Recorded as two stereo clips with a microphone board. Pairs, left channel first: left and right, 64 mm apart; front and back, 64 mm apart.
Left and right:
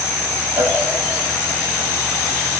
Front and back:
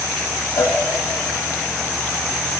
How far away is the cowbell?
About 0.6 m.